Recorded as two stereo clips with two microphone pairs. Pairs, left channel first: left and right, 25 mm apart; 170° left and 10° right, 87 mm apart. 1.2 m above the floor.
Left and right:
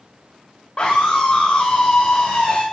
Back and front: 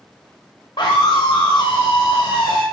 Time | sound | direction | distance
0.8 | a scream | 135° left | 3 m